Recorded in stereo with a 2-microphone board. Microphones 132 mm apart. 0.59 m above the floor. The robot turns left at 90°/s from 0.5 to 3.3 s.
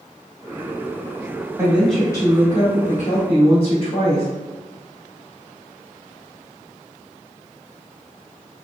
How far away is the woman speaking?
About 1.3 m.